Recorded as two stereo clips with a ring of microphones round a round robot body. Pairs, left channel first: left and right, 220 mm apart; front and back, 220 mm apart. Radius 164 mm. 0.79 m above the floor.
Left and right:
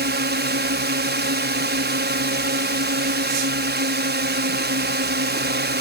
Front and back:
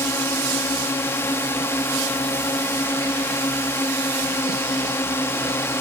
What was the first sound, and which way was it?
A drone, 80° right.